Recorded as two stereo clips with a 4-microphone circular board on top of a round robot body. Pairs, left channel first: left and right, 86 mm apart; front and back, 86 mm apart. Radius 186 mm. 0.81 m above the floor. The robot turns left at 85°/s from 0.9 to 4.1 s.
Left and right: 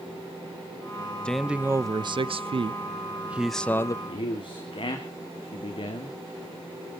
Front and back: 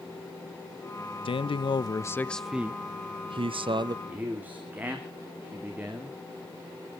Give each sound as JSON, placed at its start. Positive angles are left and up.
{"t": 1.2, "sound": "a man speaking", "azimuth_deg": 10, "distance_m": 0.6}
{"t": 4.0, "sound": "a man speaking", "azimuth_deg": 115, "distance_m": 2.5}